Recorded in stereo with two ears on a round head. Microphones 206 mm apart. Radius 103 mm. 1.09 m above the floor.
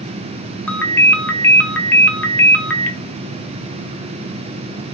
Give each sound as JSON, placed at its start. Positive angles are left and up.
{"t": 0.7, "sound": "a ringtone", "side_deg": 5, "distance_m": 0.7}